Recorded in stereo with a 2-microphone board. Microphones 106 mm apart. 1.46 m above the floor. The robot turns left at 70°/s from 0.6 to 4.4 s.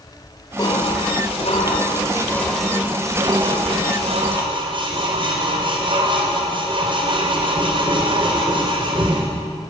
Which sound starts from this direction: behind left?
Dishes clattering, at 0.6 s.